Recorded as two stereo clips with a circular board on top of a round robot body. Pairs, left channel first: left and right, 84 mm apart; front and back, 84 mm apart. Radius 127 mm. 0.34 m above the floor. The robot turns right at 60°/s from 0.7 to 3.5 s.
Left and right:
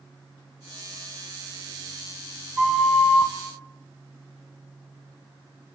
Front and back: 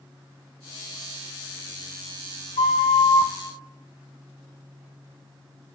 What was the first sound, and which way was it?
A flute, 10° right.